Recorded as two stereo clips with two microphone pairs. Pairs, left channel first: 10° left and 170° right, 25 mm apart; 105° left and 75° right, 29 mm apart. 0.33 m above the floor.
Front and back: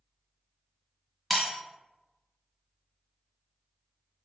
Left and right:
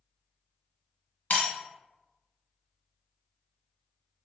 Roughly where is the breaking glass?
Left.